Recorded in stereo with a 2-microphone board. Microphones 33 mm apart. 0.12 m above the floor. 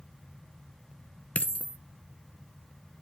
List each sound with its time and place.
1.4 s a dropped coin: 50° left (ahead or behind), 0.7 m